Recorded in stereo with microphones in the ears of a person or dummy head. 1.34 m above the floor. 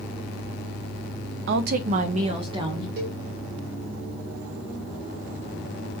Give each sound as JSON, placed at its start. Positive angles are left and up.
{"t": 1.5, "sound": "a woman speaking", "side_deg": -60, "distance_m": 0.5}
{"t": 3.0, "sound": "a cowbell", "side_deg": -50, "distance_m": 1.3}